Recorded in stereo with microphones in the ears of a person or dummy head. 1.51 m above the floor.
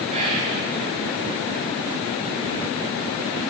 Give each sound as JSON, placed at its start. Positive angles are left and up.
{"t": 0.1, "sound": "whispering", "side_deg": -35, "distance_m": 1.6}